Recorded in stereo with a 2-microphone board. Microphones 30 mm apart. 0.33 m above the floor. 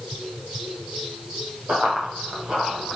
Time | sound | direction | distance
1.7 | running footsteps | 40° right (ahead or behind) | 6 m